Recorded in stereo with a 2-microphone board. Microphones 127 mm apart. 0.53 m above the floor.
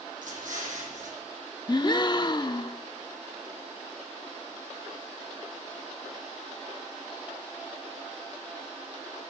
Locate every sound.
0.2 s an explosion: 85° right, 8.5 m
1.7 s a gasp: 35° left (ahead or behind), 0.7 m